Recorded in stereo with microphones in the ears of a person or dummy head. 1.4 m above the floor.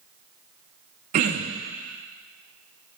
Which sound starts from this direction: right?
Throat clearing, at 1.1 s.